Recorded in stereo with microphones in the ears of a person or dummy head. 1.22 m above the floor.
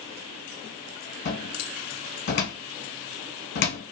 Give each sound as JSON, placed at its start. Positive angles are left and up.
{"t": 1.2, "sound": "a cupboard door", "side_deg": 55, "distance_m": 1.2}